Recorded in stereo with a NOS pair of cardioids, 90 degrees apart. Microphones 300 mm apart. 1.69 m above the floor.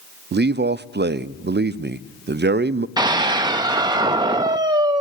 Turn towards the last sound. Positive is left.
turn(degrees=-15)